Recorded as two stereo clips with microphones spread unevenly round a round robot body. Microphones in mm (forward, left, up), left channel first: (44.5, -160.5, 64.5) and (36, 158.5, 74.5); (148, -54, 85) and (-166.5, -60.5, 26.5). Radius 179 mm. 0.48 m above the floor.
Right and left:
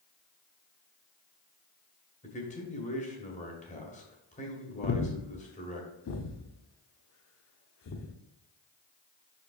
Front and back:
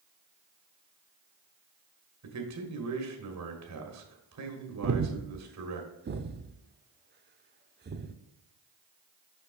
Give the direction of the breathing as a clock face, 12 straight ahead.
4 o'clock.